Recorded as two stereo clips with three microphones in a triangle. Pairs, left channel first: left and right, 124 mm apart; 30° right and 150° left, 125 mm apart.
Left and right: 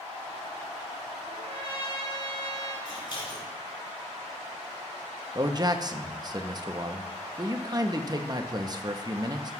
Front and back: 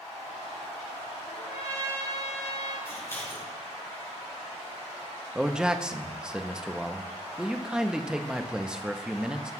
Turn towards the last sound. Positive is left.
turn(degrees=-130)